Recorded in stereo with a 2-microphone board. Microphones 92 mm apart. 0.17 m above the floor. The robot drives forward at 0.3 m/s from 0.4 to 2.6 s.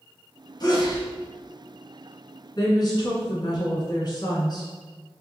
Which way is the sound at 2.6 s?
50° left (ahead or behind).